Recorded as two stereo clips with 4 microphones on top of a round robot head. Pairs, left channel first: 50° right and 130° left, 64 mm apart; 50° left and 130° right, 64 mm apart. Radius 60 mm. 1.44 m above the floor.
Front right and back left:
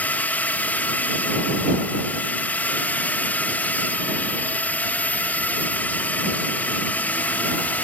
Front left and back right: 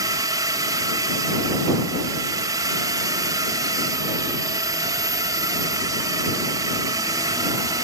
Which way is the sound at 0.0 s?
110° right.